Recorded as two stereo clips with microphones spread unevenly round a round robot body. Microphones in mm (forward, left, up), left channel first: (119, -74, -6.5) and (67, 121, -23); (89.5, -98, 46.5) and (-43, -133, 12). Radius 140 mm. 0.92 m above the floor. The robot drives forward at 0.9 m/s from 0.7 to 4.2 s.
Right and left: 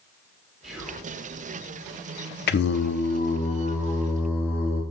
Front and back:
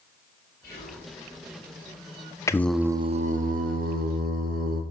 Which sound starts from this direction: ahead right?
Singing, at 2.5 s.